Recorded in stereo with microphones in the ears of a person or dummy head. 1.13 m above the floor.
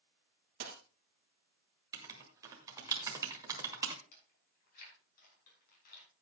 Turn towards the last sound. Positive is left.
turn(degrees=60)  # may be behind; listen again after turning